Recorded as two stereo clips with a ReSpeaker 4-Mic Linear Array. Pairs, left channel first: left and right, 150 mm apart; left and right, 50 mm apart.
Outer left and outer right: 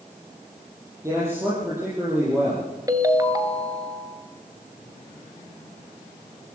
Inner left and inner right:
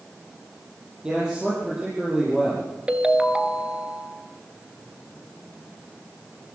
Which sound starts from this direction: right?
A ringtone, at 2.9 s.